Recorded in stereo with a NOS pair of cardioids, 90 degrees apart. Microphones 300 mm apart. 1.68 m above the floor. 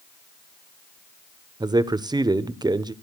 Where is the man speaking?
15° right, 1.1 m.